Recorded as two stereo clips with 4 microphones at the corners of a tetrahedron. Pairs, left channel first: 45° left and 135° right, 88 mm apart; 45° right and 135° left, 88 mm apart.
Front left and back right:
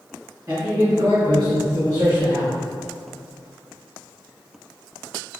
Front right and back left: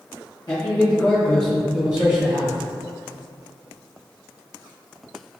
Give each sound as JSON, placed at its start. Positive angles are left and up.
{"t": 0.5, "sound": "a man speaking", "azimuth_deg": -80, "distance_m": 1.1}